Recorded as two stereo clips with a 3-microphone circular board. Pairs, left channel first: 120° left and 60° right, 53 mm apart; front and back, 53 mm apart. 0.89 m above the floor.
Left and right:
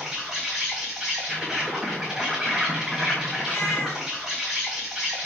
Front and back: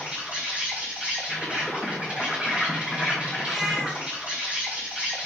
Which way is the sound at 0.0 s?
140° right.